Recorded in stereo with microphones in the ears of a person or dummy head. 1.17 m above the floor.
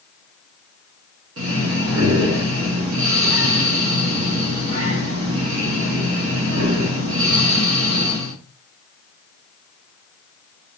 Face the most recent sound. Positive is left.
turn(degrees=-75)  # may be behind; listen again after turning